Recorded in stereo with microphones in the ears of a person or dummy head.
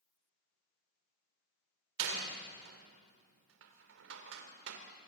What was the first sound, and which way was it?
A door slam, 80° right.